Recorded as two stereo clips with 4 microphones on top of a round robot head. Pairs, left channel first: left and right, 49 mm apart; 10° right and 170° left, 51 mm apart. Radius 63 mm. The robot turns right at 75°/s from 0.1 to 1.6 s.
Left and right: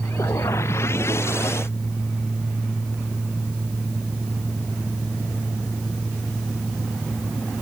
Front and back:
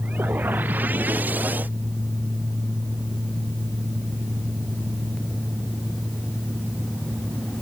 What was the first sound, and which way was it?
Only background noise.